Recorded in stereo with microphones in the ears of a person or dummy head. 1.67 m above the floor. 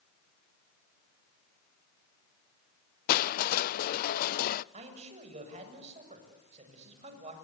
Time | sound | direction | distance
3.1 | crushing | 50° left (ahead or behind) | 0.6 m
4.7 | a man speaking | 40° right (ahead or behind) | 7 m